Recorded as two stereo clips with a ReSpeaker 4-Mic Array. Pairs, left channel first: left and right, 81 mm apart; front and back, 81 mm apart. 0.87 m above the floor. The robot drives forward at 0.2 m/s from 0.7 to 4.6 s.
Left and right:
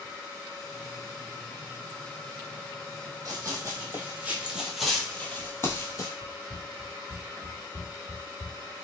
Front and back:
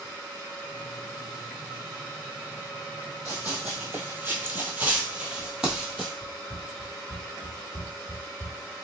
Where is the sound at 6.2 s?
130° right, 1.0 m; by 8.7 s straight behind, 1.9 m.